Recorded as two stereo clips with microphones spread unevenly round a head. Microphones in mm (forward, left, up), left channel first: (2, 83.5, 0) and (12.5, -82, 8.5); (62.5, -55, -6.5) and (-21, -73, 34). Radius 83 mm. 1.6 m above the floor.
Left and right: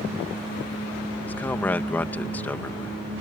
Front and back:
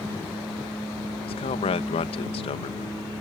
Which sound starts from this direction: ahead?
A man speaking, at 1.2 s.